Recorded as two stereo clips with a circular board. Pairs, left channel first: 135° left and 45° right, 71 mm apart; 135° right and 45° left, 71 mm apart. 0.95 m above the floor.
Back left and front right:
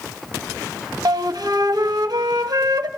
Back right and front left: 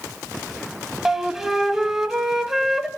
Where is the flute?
35° right, 1.6 m.